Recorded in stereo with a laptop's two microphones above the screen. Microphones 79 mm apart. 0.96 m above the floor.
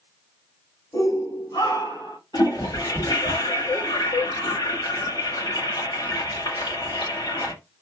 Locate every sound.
0.9 s a shout: 65° left (ahead or behind), 2.5 m; by 2.2 s 55° left (ahead or behind), 2 m
2.3 s a toilet flushing: 75° left (ahead or behind), 2.5 m